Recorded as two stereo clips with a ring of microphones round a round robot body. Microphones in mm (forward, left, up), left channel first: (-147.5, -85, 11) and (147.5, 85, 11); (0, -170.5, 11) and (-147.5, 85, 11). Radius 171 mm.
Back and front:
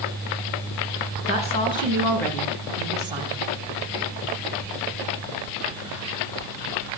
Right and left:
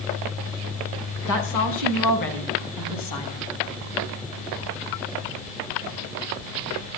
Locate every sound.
1.3 s a woman speaking: 80° right, 4.5 m; by 3.5 s 40° right, 3.5 m